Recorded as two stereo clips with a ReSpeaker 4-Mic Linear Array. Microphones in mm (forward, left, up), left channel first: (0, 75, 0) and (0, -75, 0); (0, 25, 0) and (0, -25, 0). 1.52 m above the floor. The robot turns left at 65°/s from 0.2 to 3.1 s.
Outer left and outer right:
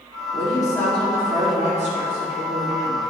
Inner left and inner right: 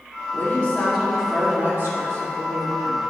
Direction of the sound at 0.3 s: 45° left.